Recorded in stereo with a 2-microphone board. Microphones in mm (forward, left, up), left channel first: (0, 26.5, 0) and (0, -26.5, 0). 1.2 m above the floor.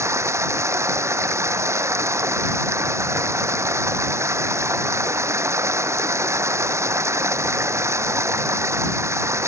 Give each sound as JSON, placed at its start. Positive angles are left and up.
{"t": 0.0, "sound": "running water", "side_deg": -60}